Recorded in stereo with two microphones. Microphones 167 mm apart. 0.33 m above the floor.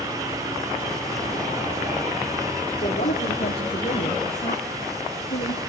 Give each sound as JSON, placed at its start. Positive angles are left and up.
{"t": 2.8, "sound": "a woman speaking", "side_deg": 65, "distance_m": 6.0}